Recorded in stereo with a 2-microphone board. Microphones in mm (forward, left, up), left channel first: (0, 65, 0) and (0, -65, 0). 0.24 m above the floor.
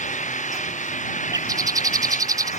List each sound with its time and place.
0.0 s an engine running: 70° left (ahead or behind)
1.3 s a bird: 25° right (ahead or behind)